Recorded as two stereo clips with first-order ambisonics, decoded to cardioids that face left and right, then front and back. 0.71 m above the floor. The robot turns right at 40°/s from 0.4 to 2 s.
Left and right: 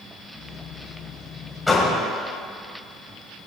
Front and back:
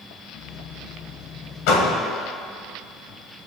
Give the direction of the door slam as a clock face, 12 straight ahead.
12 o'clock.